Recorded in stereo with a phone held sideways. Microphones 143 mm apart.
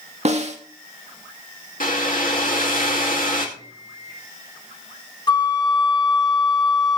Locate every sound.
0.2 s a snare drum: 50° right (ahead or behind), 1.8 m
1.8 s a hair dryer: 75° left (ahead or behind), 2 m
3.6 s a microwave: 25° right (ahead or behind), 6 m
5.3 s a flute: 30° left (ahead or behind), 0.7 m